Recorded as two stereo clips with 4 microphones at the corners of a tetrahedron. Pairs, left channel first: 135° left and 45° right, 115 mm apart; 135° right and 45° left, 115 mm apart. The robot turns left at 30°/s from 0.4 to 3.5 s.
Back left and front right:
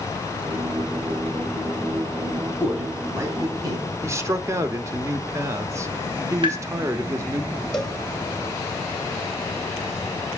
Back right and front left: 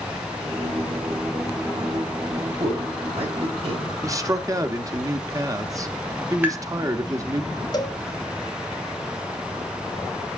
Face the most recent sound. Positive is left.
turn(degrees=-145)